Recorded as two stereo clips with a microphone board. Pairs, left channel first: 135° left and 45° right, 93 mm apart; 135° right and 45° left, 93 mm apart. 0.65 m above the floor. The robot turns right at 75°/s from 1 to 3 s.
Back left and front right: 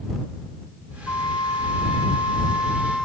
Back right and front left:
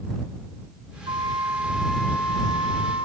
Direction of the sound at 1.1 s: 70° left.